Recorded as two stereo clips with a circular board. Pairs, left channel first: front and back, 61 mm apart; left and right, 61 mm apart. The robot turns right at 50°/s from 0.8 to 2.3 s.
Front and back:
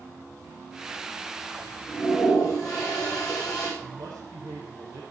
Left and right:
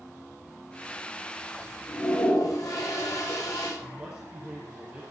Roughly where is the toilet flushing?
Ahead left.